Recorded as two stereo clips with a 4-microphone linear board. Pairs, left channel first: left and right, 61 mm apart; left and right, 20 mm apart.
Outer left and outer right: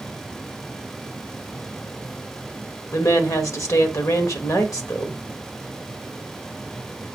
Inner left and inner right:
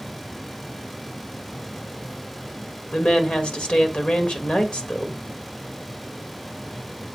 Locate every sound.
2.9 s a woman speaking: 70° left (ahead or behind), 1.4 m